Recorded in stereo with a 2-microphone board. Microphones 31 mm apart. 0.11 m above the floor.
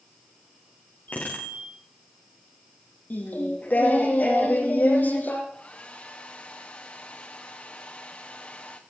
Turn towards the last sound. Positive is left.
turn(degrees=50)  # may be behind; listen again after turning